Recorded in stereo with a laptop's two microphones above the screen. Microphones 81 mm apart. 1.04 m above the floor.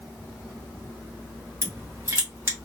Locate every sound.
1.6 s crushing: 30° right (ahead or behind), 0.8 m